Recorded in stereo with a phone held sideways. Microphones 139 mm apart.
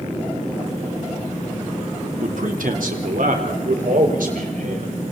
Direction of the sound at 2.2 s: 70° right (ahead or behind).